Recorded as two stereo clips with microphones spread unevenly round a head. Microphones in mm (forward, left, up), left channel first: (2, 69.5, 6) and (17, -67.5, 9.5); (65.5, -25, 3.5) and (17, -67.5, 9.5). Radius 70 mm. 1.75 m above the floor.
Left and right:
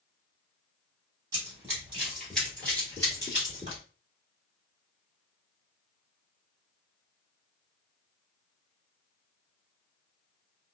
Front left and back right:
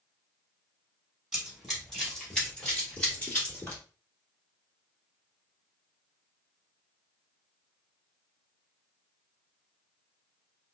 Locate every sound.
1.3 s running footsteps: 70° right, 1.9 m; by 3.8 s 90° left, 2 m